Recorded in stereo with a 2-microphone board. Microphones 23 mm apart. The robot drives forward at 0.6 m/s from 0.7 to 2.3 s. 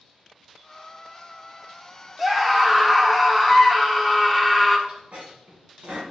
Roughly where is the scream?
Centre.